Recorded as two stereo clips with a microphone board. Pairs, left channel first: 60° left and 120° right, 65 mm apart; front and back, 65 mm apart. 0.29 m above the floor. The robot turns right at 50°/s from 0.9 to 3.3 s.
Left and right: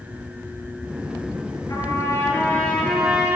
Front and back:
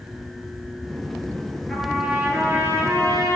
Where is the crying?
No crying in this recording.